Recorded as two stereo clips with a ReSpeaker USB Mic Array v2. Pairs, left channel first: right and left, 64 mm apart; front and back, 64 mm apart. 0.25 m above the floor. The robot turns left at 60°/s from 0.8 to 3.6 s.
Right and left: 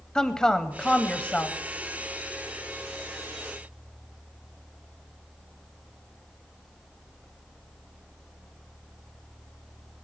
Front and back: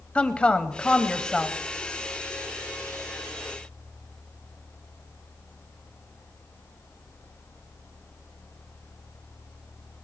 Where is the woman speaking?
30° right, 0.9 m; by 1.6 s 80° right, 0.9 m.